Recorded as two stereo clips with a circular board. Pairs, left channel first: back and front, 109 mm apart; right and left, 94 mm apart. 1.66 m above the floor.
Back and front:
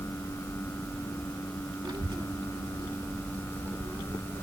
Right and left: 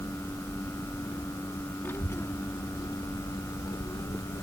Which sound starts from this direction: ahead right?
A child speaking, at 1.8 s.